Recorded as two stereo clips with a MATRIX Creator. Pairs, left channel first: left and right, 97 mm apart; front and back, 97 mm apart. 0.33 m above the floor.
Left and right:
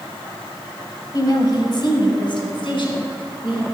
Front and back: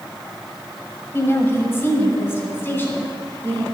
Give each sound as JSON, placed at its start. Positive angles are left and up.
{"t": 1.1, "sound": "a woman speaking", "azimuth_deg": 55, "distance_m": 1.7}